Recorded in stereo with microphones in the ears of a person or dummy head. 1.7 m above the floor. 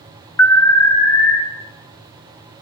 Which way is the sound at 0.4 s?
15° left (ahead or behind).